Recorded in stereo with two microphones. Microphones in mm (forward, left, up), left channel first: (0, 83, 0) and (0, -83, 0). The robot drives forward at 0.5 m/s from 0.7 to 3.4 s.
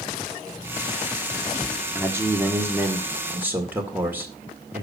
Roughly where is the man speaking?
Centre.